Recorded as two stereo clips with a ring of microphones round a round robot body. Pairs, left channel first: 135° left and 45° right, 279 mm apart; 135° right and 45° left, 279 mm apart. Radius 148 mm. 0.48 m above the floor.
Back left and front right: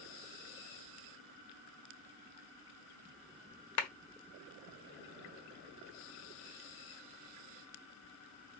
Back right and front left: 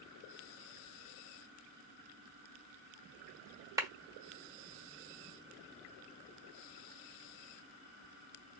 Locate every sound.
3.8 s a clap: 125° left, 1.2 m